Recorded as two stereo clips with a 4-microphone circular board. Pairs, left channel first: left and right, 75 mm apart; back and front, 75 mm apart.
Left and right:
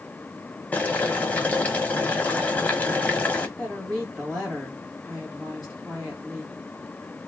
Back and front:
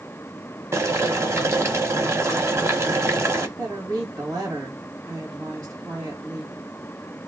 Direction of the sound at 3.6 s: Straight ahead.